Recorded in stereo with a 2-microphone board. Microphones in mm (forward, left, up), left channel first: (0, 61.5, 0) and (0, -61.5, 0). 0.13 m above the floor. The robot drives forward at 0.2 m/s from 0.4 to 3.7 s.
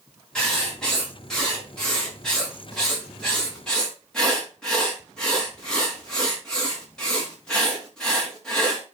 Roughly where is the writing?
Centre.